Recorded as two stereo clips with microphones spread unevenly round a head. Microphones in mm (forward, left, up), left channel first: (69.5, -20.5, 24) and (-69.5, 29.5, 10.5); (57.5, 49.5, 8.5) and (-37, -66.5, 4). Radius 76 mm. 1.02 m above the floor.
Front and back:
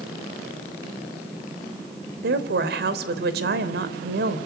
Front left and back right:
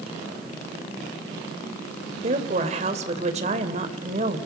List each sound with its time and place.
2.2 s a woman speaking: straight behind, 3.5 m